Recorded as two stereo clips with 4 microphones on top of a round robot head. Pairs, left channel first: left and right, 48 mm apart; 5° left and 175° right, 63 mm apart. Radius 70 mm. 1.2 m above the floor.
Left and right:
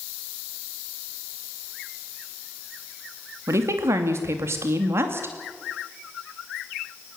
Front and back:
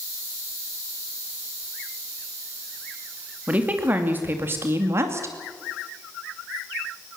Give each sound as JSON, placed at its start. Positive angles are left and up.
{"t": 3.5, "sound": "a woman speaking", "azimuth_deg": -110, "distance_m": 2.5}